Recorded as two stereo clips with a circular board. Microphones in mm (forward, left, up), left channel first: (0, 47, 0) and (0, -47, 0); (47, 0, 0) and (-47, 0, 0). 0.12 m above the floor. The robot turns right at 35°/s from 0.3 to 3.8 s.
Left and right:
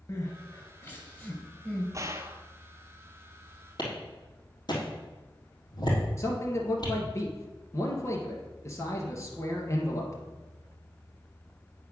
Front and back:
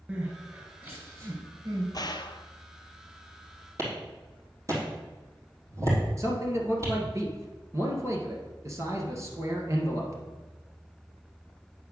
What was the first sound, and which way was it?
Crying, 110° left.